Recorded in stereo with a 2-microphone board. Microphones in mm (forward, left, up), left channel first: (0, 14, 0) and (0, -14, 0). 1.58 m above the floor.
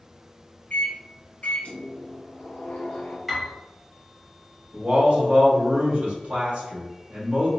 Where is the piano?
5° right (ahead or behind), 0.9 m.